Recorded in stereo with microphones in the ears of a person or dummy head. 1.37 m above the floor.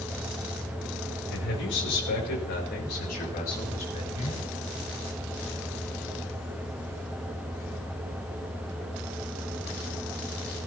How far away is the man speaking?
About 5 m.